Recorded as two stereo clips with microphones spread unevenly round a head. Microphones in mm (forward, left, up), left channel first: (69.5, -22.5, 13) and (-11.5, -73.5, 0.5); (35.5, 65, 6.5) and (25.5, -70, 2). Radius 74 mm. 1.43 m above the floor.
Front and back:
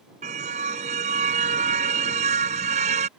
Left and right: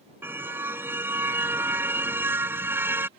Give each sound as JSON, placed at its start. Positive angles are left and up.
{"t": 0.2, "sound": "a car horn", "azimuth_deg": -175}